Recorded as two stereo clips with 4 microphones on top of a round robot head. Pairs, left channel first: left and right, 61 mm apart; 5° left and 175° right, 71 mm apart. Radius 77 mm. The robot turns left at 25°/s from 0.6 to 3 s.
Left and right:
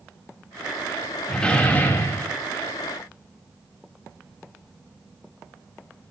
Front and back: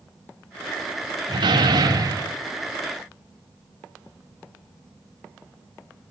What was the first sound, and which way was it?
A door slam, 170° left.